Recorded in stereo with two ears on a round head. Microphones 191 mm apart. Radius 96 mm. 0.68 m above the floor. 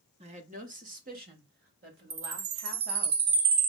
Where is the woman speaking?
30° right (ahead or behind), 0.8 m; by 3.1 s 50° right (ahead or behind), 3 m.